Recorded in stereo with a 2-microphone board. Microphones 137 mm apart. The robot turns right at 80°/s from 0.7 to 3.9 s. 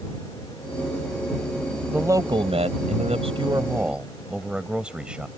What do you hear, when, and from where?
1.9 s a man speaking: 170° right; by 5.3 s 10° right